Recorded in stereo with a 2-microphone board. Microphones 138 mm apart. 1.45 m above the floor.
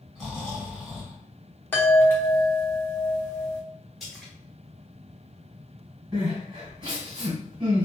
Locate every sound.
0.1 s snoring: centre (ahead or behind), 1.8 m
1.7 s a chime: 15° left (ahead or behind), 0.7 m
4.0 s a splash: centre (ahead or behind), 1.1 m
6.1 s crying: 35° right (ahead or behind), 1.5 m